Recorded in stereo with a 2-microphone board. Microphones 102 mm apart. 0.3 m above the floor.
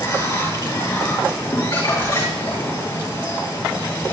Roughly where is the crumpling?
Left.